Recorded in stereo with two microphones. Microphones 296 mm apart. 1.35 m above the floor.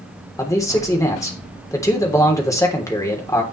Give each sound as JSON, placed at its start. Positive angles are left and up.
{"t": 0.4, "sound": "a man speaking", "side_deg": 10, "distance_m": 3.5}